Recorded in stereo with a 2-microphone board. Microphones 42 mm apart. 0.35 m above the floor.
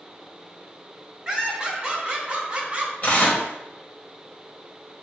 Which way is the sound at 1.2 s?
15° right (ahead or behind).